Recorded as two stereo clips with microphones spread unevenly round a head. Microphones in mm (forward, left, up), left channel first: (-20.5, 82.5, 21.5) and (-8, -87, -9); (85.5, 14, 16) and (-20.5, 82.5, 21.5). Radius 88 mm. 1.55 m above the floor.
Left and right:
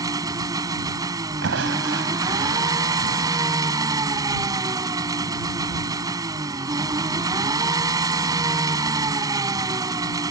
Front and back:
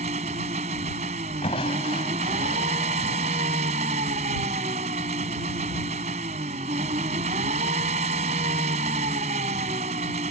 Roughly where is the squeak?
I don't hear a squeak.